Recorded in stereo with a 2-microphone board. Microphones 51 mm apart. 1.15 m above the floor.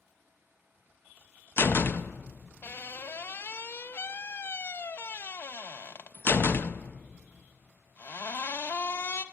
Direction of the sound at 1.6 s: 45° left (ahead or behind).